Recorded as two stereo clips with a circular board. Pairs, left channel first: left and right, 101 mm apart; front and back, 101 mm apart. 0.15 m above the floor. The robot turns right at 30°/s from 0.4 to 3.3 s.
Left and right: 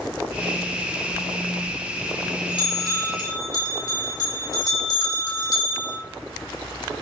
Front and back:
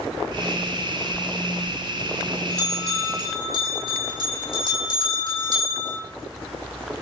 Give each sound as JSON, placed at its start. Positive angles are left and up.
{"t": 1.1, "sound": "a bell", "azimuth_deg": 70, "distance_m": 2.5}